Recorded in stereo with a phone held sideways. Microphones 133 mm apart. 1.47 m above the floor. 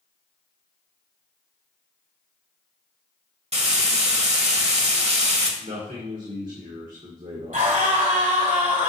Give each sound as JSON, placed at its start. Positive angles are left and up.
{"t": 3.5, "sound": "frying", "side_deg": -55, "distance_m": 1.3}
{"t": 5.6, "sound": "a man speaking", "side_deg": -75, "distance_m": 1.4}
{"t": 7.5, "sound": "a scream", "side_deg": -80, "distance_m": 2.5}